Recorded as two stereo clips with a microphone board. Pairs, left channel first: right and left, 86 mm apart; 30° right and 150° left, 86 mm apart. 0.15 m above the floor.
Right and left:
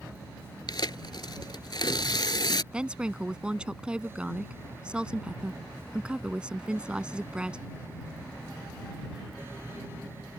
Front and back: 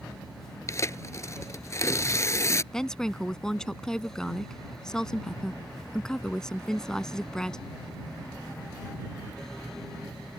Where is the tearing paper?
75° right.